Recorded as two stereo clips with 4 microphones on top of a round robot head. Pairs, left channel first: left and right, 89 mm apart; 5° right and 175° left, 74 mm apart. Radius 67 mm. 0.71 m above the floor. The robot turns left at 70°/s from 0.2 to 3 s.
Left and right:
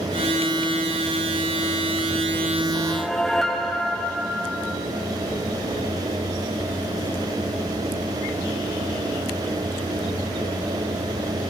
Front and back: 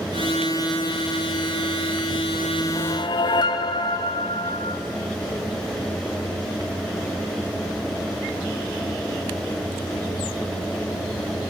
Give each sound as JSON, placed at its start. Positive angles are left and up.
{"t": 2.8, "sound": "a whoosh", "azimuth_deg": 20, "distance_m": 1.0}